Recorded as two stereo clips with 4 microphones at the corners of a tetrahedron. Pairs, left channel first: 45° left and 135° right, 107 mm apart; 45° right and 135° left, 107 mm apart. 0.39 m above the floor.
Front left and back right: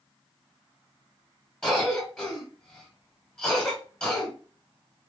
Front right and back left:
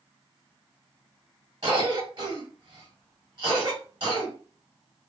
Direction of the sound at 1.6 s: 115° left.